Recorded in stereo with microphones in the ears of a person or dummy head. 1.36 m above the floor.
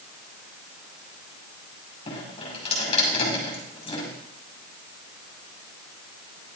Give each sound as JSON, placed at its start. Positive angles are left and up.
{"t": 2.1, "sound": "dripping", "side_deg": 30, "distance_m": 6.0}